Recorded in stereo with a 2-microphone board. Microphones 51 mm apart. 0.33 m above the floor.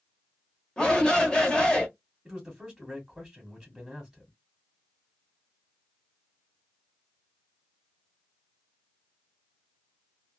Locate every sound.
0.8 s a shout: 15° left (ahead or behind), 0.9 m
2.2 s a man speaking: 10° right (ahead or behind), 1.3 m